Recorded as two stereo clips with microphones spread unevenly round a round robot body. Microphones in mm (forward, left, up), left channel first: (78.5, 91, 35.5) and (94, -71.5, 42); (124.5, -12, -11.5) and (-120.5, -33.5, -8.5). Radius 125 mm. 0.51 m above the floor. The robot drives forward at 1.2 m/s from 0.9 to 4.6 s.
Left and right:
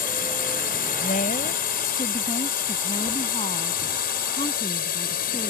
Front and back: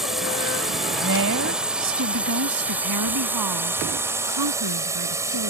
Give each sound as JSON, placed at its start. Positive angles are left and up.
{"t": 0.0, "sound": "a drone", "azimuth_deg": 95}
{"t": 1.0, "sound": "a woman speaking", "azimuth_deg": 145}